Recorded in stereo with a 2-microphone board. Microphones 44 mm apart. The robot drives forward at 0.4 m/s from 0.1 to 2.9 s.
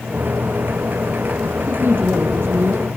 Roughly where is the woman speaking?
Right.